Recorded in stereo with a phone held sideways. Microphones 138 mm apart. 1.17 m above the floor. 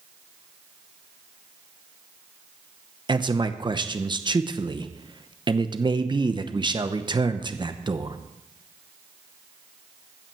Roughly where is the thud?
No thud in this recording.